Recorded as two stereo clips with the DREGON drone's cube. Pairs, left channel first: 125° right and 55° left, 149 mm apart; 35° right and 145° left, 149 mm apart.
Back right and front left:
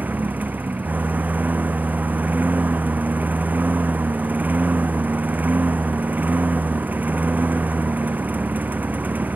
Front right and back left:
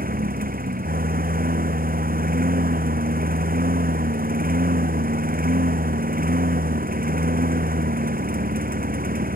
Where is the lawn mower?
135° left.